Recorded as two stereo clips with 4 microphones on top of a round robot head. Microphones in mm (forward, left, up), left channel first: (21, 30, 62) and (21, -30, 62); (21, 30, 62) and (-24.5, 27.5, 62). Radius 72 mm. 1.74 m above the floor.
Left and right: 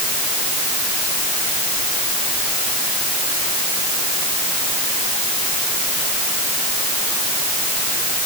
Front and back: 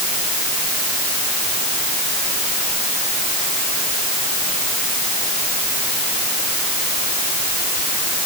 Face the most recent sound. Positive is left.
No sound to turn to.